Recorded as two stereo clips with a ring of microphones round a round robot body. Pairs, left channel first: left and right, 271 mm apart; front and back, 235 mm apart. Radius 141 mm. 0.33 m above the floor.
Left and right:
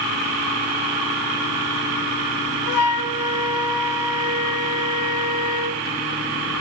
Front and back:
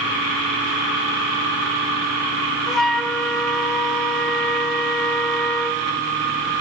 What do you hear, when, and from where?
2.7 s a flute: 90° left, 1.1 m